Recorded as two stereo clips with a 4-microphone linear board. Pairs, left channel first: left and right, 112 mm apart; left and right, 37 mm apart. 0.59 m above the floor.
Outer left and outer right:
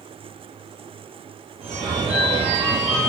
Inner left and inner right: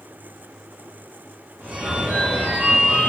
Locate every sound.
1.6 s a phone ringing: 65° right (ahead or behind), 1.3 m